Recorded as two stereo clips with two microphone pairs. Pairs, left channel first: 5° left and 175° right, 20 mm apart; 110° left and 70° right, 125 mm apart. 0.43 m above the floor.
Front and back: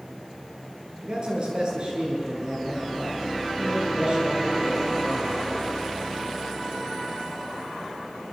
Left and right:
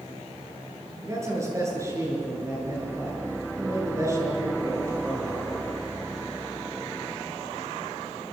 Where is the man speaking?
135° right, 8 m.